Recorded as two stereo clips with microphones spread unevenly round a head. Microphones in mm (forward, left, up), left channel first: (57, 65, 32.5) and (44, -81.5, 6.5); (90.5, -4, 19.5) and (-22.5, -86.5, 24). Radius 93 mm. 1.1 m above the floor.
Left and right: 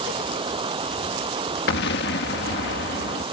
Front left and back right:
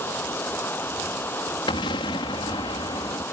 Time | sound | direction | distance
0.0 | running water | 40° right | ?
1.7 | an explosion | 100° left | ?